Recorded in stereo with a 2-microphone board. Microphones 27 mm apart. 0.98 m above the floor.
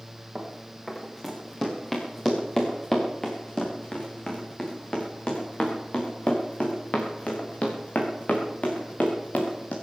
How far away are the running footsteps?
About 4.5 m.